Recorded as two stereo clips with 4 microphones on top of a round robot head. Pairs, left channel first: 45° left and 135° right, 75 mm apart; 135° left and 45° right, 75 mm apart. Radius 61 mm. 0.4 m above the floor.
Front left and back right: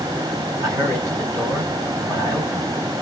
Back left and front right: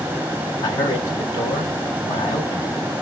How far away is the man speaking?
About 2.5 m.